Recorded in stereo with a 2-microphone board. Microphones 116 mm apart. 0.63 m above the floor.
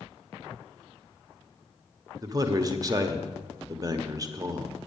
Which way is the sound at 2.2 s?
30° right (ahead or behind).